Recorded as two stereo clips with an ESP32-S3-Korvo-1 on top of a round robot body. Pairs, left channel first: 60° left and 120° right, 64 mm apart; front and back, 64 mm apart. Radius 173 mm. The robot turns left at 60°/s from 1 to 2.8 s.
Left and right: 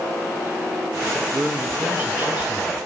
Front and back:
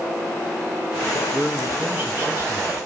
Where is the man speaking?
110° right, 1.0 m; by 2.8 s 165° left, 1.0 m.